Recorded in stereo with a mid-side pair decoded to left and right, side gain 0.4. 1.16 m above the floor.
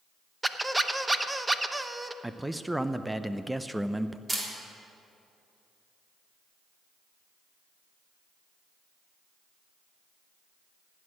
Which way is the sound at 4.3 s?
25° right.